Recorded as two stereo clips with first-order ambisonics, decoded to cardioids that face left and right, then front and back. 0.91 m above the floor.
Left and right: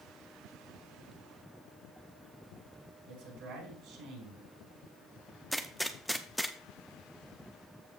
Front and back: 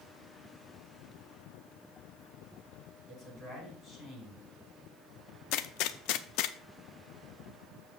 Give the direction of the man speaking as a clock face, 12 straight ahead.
2 o'clock.